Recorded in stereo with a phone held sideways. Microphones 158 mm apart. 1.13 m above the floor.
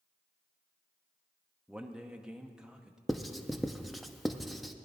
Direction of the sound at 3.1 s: Centre (ahead or behind).